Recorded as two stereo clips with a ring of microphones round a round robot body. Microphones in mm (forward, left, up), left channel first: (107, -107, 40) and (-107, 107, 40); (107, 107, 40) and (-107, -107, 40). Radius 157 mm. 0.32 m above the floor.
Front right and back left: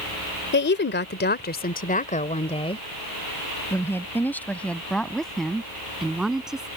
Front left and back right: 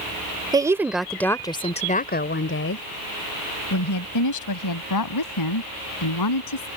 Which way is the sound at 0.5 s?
65° right.